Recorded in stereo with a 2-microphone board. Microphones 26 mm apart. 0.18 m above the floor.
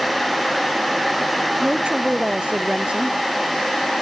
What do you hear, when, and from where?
1.6 s a woman speaking: 40° right (ahead or behind)